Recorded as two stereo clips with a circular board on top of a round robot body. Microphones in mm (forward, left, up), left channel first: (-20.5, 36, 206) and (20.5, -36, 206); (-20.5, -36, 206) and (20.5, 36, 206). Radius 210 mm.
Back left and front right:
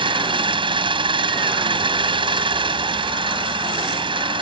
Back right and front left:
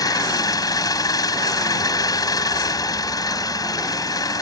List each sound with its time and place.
0.0 s an engine running: 75° right